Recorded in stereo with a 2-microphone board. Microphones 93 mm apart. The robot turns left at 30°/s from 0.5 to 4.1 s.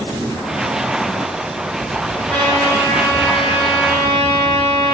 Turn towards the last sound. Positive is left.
turn(degrees=110)